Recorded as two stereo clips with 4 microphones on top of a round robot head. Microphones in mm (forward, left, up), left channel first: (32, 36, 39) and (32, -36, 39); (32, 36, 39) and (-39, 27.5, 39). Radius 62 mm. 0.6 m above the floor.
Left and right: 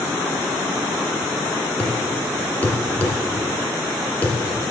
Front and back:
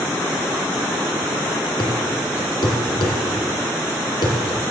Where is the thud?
25° left, 1.8 m.